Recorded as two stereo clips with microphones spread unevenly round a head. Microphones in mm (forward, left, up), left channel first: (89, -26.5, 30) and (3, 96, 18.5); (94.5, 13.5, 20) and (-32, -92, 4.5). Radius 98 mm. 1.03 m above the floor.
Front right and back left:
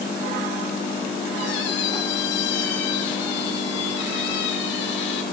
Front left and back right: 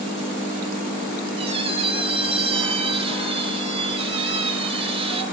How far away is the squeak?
About 3 m.